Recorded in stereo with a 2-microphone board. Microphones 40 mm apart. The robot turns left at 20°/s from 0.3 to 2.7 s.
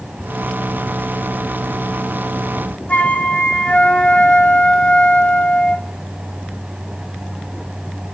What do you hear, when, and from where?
2.9 s a flute: 40° left (ahead or behind), 1.3 m